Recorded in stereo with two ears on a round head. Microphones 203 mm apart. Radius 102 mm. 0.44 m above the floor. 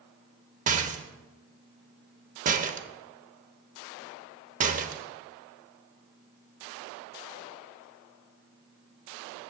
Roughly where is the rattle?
Right.